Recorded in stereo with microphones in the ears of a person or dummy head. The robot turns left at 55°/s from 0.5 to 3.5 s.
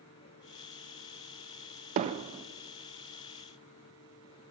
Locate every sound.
2.0 s hammering: 40° right (ahead or behind), 0.9 m; by 2.5 s 15° right (ahead or behind), 0.9 m